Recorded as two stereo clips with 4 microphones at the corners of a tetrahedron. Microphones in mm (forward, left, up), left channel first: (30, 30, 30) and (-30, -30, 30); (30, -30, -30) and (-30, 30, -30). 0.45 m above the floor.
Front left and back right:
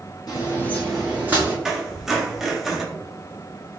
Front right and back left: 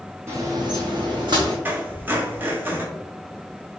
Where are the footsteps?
80° left, 1.1 m; by 1.6 s 165° left, 1.7 m.